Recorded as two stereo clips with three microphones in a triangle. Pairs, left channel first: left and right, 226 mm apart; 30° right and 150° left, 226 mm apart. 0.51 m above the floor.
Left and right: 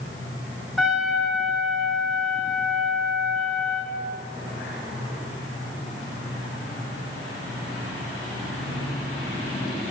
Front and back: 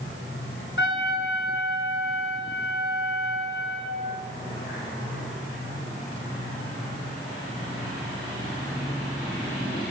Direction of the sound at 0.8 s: Straight ahead.